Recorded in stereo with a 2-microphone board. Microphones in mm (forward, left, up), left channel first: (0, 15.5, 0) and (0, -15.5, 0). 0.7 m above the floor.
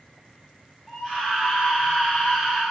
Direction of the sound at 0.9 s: 10° right (ahead or behind).